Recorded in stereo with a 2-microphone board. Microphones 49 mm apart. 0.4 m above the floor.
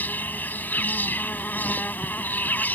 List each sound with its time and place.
0.0 s an insect: 35° left (ahead or behind)